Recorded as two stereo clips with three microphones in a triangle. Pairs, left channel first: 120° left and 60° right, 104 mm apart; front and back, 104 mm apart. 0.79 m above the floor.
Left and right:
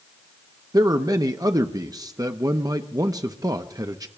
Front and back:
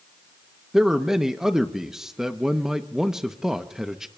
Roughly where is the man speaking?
Right.